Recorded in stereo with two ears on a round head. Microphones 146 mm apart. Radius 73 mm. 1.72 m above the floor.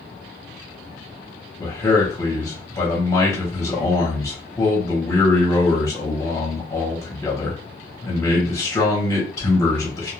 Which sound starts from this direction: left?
A man speaking, at 1.6 s.